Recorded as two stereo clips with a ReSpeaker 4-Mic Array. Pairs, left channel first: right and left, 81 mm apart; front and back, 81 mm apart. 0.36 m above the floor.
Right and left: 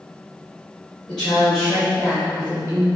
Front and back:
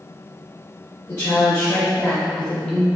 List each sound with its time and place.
1.1 s a woman speaking: 20° right, 1.5 m; by 2.9 s 80° left, 1.4 m